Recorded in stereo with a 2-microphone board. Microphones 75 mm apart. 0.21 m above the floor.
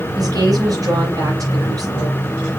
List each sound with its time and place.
0.2 s a woman speaking: 50° right (ahead or behind), 6 m